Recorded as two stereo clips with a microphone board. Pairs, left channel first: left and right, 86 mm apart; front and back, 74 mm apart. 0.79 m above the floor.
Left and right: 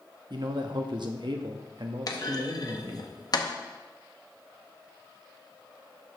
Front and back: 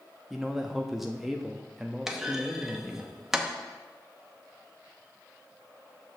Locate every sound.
0.3 s a man speaking: 95° right, 0.7 m
2.1 s a clunk: 95° left, 0.8 m